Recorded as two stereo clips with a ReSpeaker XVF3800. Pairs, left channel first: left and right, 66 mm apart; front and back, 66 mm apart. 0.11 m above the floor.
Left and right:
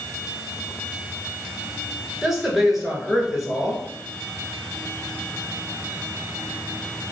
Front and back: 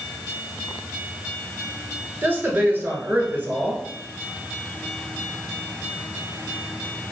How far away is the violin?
No violin in this recording.